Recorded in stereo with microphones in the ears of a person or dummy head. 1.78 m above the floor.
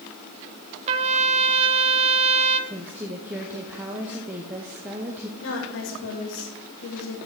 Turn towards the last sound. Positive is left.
turn(degrees=75)  # may be behind; listen again after turning